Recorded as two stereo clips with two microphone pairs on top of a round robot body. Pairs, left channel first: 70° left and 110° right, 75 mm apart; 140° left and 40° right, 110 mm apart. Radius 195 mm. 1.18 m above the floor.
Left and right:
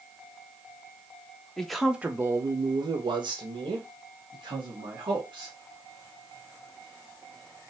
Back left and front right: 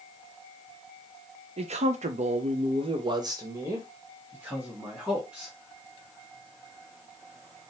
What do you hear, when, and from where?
1.6 s a man speaking: 15° right, 0.8 m; by 5.5 s 120° right, 2.5 m